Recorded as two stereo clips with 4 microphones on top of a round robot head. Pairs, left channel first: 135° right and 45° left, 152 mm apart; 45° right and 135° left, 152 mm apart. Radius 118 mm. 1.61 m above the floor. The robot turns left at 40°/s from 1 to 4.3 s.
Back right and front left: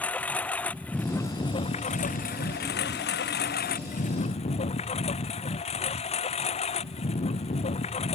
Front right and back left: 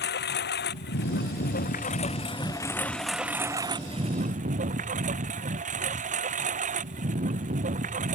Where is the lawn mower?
55° right; by 8.2 s 175° left.